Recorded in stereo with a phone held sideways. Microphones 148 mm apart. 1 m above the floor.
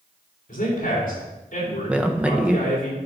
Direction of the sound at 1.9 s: 10° right (ahead or behind).